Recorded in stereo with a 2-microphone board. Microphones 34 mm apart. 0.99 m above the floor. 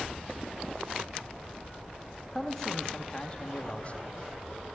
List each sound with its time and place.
2.4 s a man speaking: 10° left (ahead or behind), 1.5 m; by 4.1 s 45° left (ahead or behind), 1.6 m